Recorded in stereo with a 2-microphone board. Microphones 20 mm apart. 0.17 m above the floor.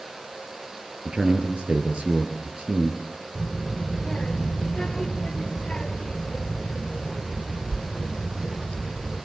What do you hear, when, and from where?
1.1 s a man speaking: 65° right (ahead or behind), 3 m
3.4 s a child speaking: 45° left (ahead or behind), 2 m